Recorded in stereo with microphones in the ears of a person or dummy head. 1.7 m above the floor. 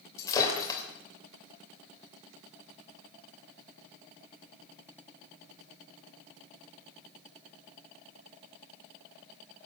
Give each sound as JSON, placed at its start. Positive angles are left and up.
{"t": 0.2, "sound": "breaking glass", "side_deg": 20, "distance_m": 3.0}